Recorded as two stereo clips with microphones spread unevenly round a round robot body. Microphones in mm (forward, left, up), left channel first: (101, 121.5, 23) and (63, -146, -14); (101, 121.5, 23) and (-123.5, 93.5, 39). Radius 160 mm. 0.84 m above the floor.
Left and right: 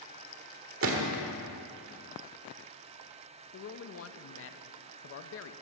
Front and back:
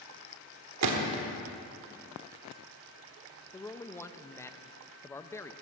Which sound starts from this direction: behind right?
A gunshot, at 0.8 s.